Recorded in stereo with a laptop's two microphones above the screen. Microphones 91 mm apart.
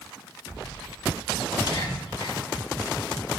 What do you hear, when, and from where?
1.6 s whispering: 45° left (ahead or behind), 2.5 m